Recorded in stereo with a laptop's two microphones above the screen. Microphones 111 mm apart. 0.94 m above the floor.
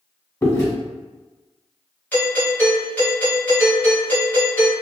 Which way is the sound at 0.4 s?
30° left (ahead or behind).